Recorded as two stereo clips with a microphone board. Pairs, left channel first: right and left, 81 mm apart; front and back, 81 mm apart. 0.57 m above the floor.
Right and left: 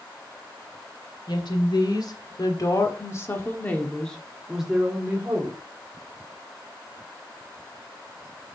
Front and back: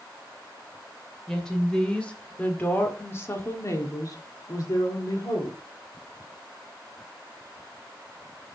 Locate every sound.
1.3 s a woman speaking: 80° right, 2.5 m; by 5.6 s 30° left, 1.9 m